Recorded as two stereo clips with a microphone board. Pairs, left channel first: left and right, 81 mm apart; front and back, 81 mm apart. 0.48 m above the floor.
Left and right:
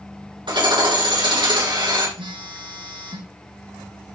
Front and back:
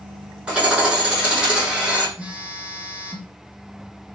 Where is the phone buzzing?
105° right, 3.5 m.